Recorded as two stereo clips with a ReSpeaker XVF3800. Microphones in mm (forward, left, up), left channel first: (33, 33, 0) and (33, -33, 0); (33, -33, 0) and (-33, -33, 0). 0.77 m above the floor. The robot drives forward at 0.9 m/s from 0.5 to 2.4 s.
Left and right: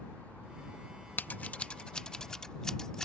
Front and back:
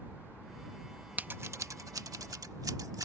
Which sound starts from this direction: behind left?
Scissors, at 1.2 s.